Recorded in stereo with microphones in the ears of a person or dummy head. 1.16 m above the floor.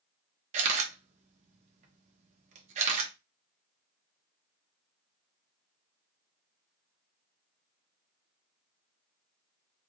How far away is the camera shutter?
About 0.8 m.